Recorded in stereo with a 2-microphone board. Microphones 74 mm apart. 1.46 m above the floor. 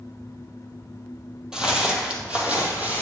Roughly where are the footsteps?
Centre.